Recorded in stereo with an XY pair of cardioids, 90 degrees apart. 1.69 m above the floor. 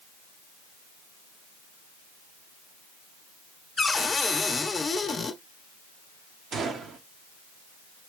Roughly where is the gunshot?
Ahead right.